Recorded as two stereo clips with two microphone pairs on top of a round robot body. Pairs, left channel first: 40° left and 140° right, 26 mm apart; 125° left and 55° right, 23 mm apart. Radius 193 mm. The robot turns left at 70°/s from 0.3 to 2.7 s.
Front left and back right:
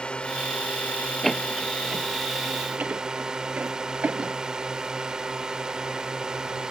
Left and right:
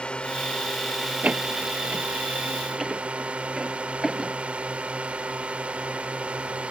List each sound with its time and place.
0.0 s a drone: 90° left; by 6.7 s 80° right
1.2 s a door slam: 30° right; by 4.3 s 135° right